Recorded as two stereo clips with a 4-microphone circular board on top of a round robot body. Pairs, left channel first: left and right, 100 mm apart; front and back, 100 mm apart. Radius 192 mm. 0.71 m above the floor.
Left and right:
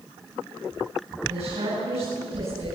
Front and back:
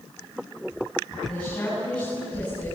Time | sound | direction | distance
1.3 | a woman speaking | 75° right | 9 m